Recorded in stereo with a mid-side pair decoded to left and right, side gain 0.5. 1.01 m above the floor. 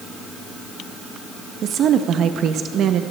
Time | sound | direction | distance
1.6 | a woman speaking | 60° right | 0.7 m